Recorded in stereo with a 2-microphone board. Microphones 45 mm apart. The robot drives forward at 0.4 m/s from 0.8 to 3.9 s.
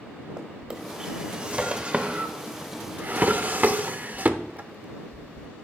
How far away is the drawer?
About 1.3 m.